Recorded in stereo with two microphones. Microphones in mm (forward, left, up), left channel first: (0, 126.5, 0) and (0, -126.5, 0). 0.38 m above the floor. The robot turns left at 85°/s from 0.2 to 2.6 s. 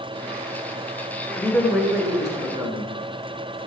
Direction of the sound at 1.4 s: 10° left (ahead or behind).